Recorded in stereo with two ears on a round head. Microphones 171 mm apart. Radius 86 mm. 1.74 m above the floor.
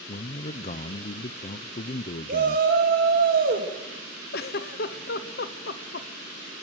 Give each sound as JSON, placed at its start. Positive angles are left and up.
{"t": 0.1, "sound": "a man speaking", "side_deg": 35, "distance_m": 0.7}
{"t": 2.3, "sound": "a shout", "side_deg": -50, "distance_m": 2.0}
{"t": 4.3, "sound": "a giggle", "side_deg": 55, "distance_m": 1.2}